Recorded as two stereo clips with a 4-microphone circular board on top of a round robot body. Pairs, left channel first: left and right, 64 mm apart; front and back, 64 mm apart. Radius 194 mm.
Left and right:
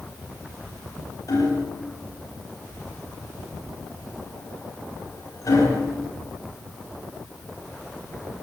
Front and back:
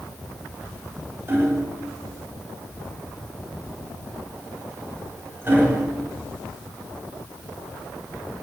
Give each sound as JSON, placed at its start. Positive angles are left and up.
{"t": 1.3, "sound": "hammering", "azimuth_deg": 125, "distance_m": 6.0}